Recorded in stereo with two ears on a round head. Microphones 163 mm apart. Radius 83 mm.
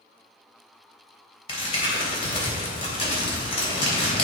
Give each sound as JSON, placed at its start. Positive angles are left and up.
{"t": 1.5, "sound": "crumpling", "side_deg": 30, "distance_m": 3.0}